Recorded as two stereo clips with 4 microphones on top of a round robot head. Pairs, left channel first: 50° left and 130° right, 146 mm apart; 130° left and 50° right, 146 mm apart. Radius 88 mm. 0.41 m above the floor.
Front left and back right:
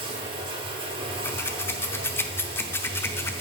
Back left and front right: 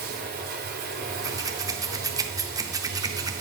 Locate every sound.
0.0 s running water: 75° right, 1.7 m
1.2 s scissors: 10° right, 0.7 m